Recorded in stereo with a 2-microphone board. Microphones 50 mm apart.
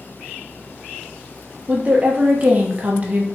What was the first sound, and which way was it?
A woman speaking, 35° right (ahead or behind).